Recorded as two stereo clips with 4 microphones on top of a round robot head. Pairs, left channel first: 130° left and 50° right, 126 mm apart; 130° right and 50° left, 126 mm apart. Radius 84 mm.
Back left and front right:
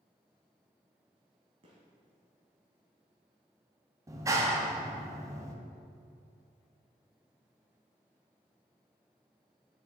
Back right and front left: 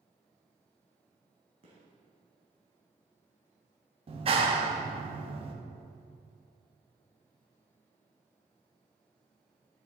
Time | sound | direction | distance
1.6 | a gunshot | straight ahead | 1.8 m
4.1 | a clap | 15° left | 1.0 m